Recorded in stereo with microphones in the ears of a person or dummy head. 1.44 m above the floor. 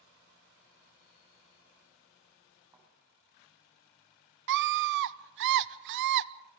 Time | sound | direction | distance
2.7 | a thud | 10° right (ahead or behind) | 6 m
4.5 | a scream | 60° right (ahead or behind) | 1.0 m